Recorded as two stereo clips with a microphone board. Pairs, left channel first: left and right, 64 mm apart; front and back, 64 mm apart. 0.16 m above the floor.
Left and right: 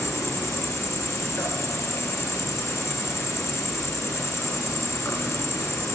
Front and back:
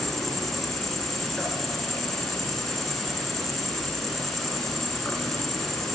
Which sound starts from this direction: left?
An insect, at 0.0 s.